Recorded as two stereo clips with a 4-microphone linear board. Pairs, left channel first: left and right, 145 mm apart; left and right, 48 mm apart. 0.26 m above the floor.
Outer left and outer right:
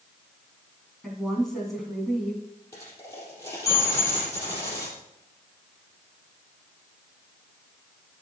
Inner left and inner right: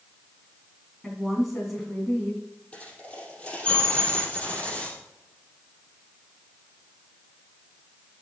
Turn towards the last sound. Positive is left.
turn(degrees=20)  # may be behind; listen again after turning